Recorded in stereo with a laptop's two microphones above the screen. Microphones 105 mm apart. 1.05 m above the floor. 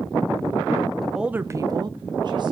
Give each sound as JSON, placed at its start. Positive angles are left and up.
{"t": 1.0, "sound": "a woman speaking", "side_deg": 0, "distance_m": 0.7}